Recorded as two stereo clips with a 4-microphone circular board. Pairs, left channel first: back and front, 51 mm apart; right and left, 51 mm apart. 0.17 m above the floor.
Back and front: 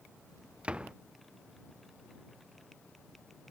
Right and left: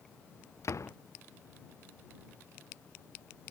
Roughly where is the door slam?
Right.